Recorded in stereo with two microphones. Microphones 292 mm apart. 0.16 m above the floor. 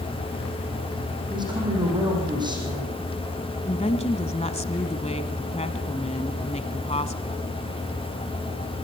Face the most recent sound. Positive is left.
turn(degrees=20)  # may be behind; listen again after turning